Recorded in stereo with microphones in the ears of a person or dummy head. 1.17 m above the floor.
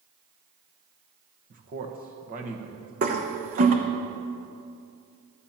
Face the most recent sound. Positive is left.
turn(degrees=-40)  # may be behind; listen again after turning